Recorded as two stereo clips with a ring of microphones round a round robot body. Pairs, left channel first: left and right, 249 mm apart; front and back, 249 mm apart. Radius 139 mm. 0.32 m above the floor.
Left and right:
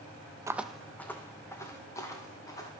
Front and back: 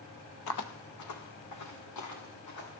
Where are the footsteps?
15° right, 0.6 m; by 2.8 s 15° left, 4 m.